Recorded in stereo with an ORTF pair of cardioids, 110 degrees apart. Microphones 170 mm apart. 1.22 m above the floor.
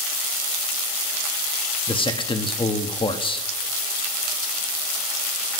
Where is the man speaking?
35° left, 1.5 m.